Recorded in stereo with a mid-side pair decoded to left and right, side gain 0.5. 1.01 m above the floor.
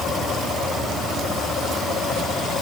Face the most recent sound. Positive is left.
No sound to turn to.